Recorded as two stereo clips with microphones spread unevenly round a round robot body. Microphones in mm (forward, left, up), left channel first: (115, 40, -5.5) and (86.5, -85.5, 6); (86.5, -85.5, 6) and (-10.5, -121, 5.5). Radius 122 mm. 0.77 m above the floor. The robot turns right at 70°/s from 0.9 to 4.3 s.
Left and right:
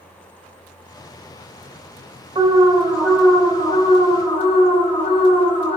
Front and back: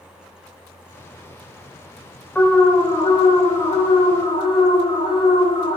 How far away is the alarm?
About 3.5 m.